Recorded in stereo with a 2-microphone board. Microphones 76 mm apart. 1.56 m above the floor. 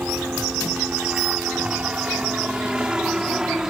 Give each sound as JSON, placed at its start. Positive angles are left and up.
{"t": 0.0, "sound": "a helicopter", "side_deg": -20}